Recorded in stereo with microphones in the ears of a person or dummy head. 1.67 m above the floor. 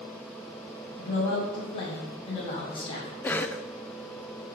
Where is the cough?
10° left (ahead or behind), 0.6 m.